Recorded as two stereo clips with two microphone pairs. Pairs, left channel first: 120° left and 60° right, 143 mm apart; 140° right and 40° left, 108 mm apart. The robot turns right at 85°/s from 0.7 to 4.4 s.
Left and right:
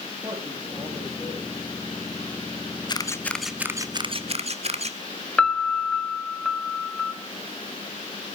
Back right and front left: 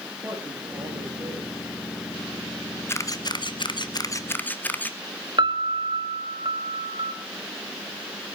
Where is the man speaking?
5° right, 8 m; by 1.5 s 65° left, 8 m.